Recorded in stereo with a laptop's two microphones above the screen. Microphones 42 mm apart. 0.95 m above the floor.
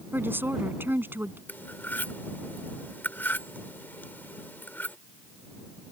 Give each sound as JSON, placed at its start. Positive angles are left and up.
{"t": 0.1, "sound": "a woman speaking", "side_deg": -60}
{"t": 1.5, "sound": "cutlery clinking", "side_deg": 55}